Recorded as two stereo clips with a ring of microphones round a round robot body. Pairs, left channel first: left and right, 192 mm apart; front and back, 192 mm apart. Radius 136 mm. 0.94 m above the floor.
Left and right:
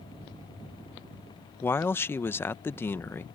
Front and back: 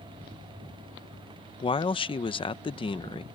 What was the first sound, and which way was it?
A man speaking, 25° left.